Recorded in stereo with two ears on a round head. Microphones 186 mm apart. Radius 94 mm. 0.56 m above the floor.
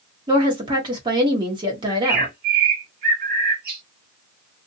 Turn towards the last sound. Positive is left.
turn(degrees=-45)  # may be behind; listen again after turning